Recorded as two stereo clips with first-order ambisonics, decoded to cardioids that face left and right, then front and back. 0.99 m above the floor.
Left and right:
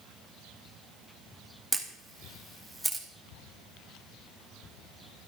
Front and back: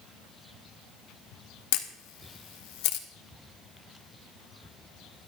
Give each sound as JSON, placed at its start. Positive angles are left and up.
{"t": 1.7, "sound": "a camera shutter", "azimuth_deg": -5, "distance_m": 1.2}